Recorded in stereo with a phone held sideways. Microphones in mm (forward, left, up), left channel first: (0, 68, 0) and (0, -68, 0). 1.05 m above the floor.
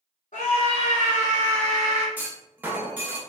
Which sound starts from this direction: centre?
A clunk, at 2.2 s.